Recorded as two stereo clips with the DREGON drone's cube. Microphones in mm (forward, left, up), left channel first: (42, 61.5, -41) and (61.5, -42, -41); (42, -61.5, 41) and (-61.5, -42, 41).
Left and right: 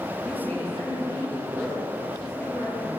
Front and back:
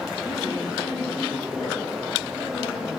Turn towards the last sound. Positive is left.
turn(degrees=30)